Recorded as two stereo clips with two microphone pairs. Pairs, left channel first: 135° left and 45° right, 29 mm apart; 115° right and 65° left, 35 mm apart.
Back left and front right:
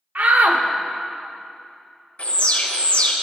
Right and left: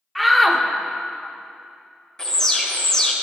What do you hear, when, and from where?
0.1 s a shout: 30° right, 0.6 m
2.2 s an alarm: 175° left, 0.7 m